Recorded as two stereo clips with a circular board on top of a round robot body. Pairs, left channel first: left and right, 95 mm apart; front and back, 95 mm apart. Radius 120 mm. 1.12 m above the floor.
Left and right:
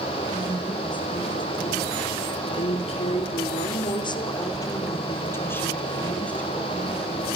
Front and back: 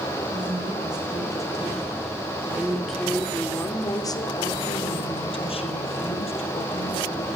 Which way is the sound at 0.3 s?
135° left.